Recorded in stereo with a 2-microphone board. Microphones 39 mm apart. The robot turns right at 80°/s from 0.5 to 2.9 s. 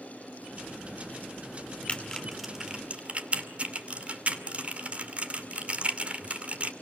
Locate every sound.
1.9 s typing on a keyboard: 30° left (ahead or behind), 2 m; by 6.7 s 35° right (ahead or behind), 2 m